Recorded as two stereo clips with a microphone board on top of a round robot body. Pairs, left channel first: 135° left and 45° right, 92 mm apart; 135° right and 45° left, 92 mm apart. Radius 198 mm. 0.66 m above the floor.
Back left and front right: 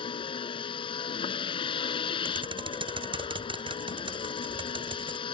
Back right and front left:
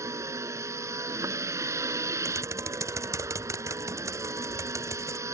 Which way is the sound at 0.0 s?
105° left.